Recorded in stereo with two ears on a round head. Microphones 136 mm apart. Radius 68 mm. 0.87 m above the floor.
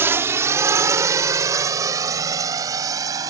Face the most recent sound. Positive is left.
turn(degrees=-25)  # may be behind; listen again after turning